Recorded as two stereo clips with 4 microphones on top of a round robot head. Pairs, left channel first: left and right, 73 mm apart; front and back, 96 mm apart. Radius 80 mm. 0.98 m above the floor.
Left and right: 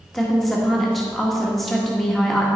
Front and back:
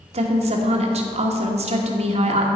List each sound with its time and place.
0.1 s a woman speaking: straight behind, 1.4 m